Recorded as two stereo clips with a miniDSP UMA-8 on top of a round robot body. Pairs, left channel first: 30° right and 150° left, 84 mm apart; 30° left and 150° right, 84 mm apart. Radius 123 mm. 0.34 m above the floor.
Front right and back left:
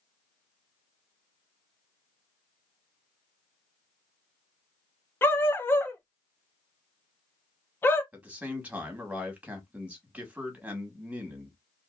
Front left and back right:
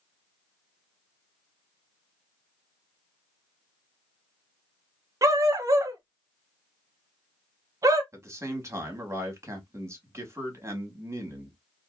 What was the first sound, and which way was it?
A dog barking, 95° right.